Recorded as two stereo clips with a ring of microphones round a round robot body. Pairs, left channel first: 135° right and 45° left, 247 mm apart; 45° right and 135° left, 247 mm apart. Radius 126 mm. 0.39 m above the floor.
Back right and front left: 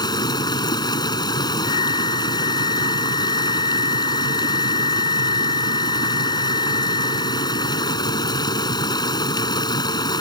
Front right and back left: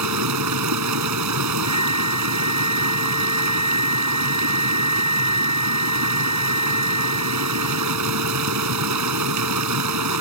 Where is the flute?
155° right.